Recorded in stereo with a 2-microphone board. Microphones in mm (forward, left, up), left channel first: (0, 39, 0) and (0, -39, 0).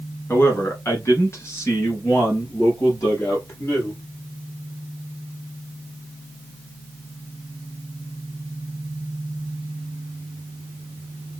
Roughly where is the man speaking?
Left.